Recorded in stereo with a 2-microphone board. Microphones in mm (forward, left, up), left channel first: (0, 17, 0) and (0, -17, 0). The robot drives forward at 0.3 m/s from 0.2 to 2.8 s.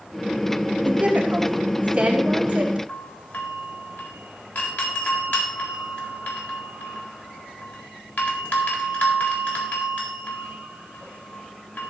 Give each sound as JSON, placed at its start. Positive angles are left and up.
{"t": 0.8, "sound": "a woman speaking", "side_deg": -40, "distance_m": 2.5}
{"t": 2.9, "sound": "a doorbell", "side_deg": 70, "distance_m": 4.0}